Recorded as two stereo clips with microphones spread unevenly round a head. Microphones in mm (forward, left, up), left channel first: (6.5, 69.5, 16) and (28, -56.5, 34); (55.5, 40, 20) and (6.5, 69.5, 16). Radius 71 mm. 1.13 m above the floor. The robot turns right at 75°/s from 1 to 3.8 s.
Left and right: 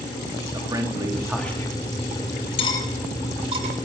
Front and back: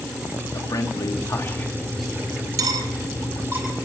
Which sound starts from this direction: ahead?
A man speaking, at 0.5 s.